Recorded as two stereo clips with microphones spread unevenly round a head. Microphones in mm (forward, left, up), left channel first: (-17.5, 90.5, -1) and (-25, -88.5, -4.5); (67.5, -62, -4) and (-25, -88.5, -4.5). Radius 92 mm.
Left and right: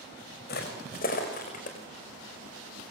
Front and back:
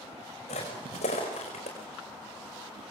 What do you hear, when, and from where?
0.5 s footsteps: 45° left, 5 m; by 1.8 s 35° left, 5 m